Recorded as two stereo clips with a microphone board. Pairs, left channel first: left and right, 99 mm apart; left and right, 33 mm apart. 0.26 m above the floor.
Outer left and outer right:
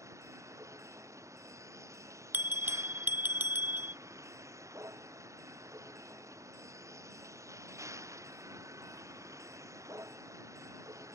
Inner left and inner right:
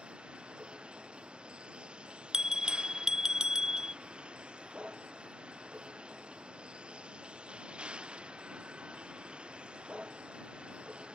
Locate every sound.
0.0 s a vehicle: 30° right (ahead or behind)
2.3 s a bell: 20° right (ahead or behind)